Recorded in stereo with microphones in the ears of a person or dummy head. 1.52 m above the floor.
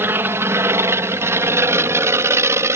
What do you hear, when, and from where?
0.0 s an aircraft: 5° right (ahead or behind); by 2.8 s 10° right (ahead or behind)